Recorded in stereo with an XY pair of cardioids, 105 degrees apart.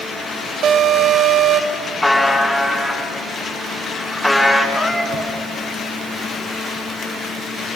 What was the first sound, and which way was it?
An alarm, 65° right.